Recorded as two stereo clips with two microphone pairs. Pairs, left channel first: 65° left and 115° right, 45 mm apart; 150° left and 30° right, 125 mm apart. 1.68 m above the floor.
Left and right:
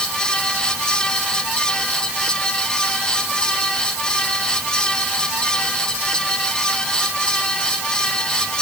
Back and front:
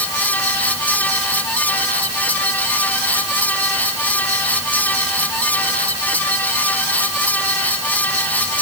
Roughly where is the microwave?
No microwave in this recording.